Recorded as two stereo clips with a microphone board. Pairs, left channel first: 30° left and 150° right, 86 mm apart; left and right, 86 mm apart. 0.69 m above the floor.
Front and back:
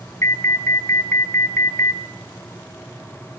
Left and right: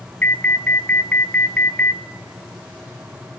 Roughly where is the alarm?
Ahead left.